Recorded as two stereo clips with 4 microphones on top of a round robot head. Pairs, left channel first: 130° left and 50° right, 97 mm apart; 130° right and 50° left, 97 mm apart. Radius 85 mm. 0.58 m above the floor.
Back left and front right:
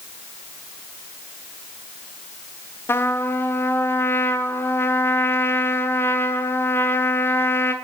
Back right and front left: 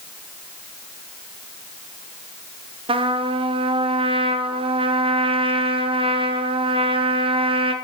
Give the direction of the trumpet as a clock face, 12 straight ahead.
10 o'clock.